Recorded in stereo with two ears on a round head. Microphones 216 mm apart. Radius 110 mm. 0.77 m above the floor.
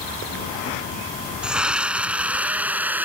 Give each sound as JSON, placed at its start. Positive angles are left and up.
{"t": 1.4, "sound": "a scream", "side_deg": -5}